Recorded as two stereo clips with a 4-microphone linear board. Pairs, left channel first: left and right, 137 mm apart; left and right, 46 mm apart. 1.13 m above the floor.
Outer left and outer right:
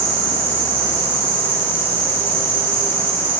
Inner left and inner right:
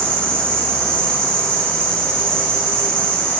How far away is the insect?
About 7.5 m.